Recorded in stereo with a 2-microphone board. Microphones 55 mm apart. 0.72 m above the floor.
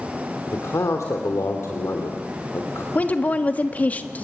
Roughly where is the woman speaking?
Left.